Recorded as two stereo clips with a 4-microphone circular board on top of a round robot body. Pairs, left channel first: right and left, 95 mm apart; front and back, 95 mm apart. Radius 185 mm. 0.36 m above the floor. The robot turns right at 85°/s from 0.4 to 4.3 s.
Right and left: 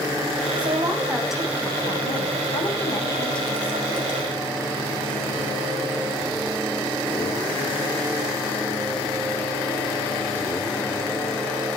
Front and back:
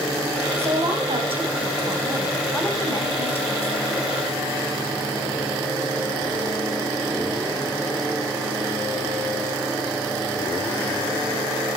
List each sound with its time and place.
0.6 s a woman speaking: 110° left, 4 m; by 4.1 s 50° left, 4 m